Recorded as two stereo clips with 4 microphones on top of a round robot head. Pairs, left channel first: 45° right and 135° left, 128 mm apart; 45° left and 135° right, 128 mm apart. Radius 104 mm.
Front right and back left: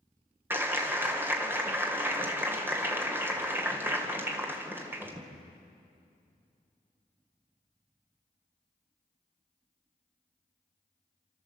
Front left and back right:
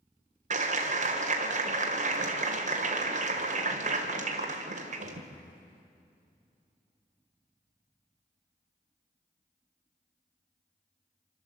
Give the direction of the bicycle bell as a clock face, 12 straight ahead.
No bicycle bell in this recording.